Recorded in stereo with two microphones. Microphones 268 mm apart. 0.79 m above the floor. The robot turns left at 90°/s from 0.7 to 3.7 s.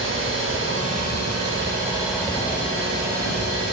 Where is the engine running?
50° right, 4 m; by 3.8 s 40° left, 4 m.